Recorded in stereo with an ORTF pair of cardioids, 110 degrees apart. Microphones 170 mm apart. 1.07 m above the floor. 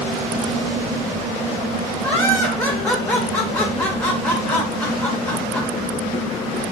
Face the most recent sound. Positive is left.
turn(degrees=10)